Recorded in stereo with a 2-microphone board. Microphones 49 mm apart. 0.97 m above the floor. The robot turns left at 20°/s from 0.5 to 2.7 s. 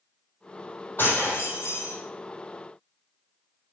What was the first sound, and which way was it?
Breaking glass, 40° left (ahead or behind).